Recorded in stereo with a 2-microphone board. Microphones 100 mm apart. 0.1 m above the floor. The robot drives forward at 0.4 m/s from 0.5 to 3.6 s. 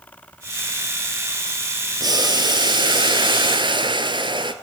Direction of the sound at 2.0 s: 40° right (ahead or behind).